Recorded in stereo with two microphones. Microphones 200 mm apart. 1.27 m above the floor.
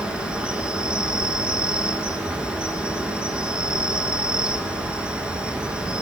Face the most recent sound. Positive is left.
turn(degrees=-5)  # may be behind; listen again after turning